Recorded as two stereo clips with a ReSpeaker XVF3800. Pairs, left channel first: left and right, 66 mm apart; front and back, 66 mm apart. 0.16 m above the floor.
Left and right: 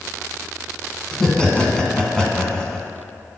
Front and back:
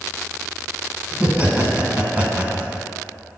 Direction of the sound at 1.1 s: 155° left.